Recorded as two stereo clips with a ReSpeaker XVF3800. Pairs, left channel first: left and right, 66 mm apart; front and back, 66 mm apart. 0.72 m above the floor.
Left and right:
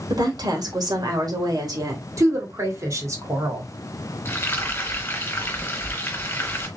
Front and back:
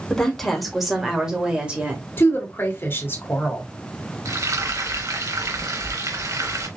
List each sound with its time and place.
0.1 s a woman speaking: 80° right, 2 m; by 2.0 s 110° right, 2.5 m
2.2 s a woman speaking: 55° right, 2.5 m
4.2 s frying: 150° left, 2 m